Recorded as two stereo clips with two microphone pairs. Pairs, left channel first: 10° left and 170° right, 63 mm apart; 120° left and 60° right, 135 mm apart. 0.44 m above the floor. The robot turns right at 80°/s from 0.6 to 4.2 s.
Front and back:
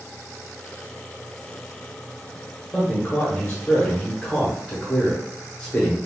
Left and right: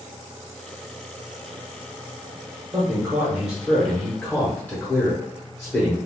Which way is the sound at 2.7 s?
45° right.